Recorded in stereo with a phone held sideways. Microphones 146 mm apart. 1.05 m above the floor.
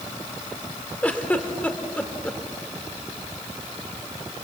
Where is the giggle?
10° left (ahead or behind), 1.9 m.